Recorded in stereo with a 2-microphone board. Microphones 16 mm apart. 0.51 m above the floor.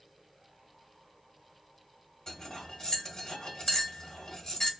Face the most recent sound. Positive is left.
turn(degrees=60)  # may be behind; listen again after turning